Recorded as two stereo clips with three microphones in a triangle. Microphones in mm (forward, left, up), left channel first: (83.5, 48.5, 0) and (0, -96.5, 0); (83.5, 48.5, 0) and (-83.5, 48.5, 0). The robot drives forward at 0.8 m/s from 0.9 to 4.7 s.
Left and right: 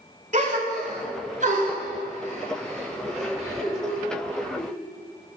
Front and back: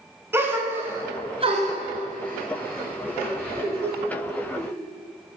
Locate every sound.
0.3 s a gasp: 110° right, 0.8 m; by 4.7 s 170° right, 3.5 m